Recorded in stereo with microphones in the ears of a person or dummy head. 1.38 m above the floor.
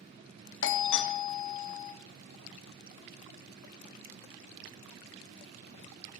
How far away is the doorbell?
About 0.8 m.